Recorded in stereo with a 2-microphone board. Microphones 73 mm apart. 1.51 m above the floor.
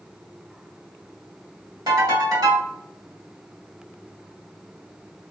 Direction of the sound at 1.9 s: 65° right (ahead or behind).